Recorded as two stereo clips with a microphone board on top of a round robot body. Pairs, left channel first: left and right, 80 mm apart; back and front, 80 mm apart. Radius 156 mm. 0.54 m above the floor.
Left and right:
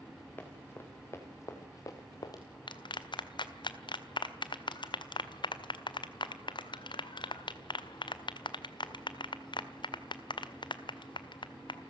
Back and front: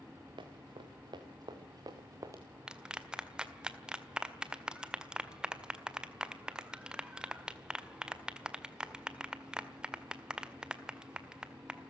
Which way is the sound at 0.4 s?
25° left.